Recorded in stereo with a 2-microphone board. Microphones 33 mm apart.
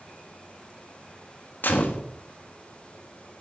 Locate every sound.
1.6 s a gunshot: 65° left (ahead or behind), 1.1 m